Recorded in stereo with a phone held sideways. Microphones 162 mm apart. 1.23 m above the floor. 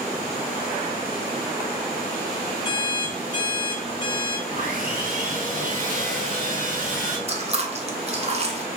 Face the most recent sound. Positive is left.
turn(degrees=-40)  # may be behind; listen again after turning